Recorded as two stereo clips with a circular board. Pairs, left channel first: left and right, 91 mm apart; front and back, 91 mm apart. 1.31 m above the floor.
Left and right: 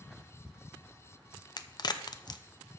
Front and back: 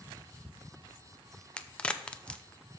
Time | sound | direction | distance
1.6 | a crack | 75° left | 0.5 m